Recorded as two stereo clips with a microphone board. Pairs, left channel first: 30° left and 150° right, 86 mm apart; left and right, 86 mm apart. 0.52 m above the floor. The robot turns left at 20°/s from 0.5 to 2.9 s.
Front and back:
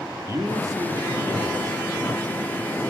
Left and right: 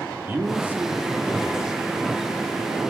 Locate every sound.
0.3 s a man speaking: 145° right, 1.4 m; by 1.8 s 170° right, 1.4 m